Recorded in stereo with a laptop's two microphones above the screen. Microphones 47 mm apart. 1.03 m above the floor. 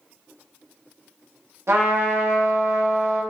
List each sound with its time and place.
1.7 s a trumpet: 80° right, 1.0 m